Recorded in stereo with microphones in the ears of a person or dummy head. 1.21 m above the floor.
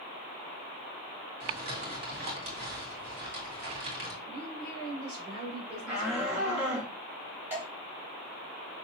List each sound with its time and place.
1.4 s crumpling: 65° right (ahead or behind), 2 m
4.3 s a woman speaking: 35° right (ahead or behind), 4 m
5.9 s a shout: 5° right (ahead or behind), 3 m
7.5 s dripping: 10° right (ahead or behind), 4 m